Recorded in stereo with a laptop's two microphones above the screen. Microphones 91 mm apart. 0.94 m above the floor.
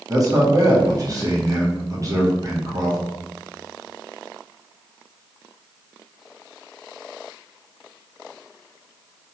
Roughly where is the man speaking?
Right.